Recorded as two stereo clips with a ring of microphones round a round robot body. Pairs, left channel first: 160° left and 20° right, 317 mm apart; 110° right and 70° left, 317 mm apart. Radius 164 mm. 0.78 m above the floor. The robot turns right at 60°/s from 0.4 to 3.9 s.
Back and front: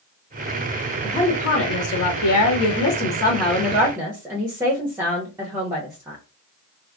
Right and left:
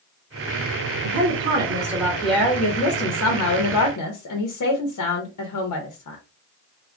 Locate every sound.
1.0 s a woman speaking: 85° left, 0.8 m; by 6.2 s 105° right, 0.8 m